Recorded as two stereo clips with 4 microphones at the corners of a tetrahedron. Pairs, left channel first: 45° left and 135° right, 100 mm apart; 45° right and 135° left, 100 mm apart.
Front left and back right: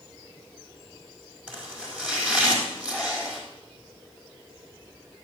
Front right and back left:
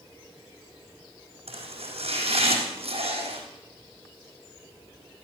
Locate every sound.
1.5 s chopping: 145° left, 3.5 m